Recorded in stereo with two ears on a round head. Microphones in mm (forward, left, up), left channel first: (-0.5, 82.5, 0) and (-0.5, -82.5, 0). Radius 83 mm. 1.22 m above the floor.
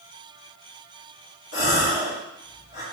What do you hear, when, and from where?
1.5 s a gasp: 65° left (ahead or behind), 2.5 m